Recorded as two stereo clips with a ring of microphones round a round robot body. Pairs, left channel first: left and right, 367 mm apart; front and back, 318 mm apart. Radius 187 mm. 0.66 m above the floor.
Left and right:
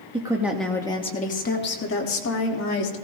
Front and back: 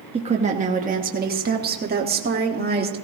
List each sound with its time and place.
0.1 s a woman speaking: 145° right, 1.0 m; by 3.0 s 125° left, 1.8 m